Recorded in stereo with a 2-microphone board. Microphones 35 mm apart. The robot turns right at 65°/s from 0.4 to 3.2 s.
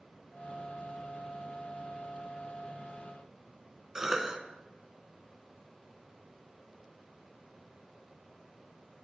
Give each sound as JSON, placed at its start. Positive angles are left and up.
{"t": 4.0, "sound": "a cough", "side_deg": -15, "distance_m": 1.1}